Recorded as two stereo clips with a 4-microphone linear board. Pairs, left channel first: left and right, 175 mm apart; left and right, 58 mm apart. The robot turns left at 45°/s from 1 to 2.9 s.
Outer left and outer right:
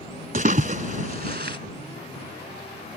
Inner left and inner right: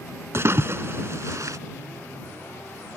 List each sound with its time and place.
0.3 s a splash: 45° right (ahead or behind); by 1.6 s 65° right (ahead or behind)